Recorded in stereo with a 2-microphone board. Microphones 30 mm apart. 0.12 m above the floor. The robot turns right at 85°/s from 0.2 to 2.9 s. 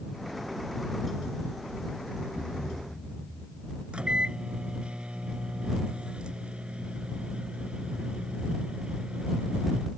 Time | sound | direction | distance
2.4 | a thud | 95° left | ?
3.9 | a microwave | 35° right (ahead or behind) | ?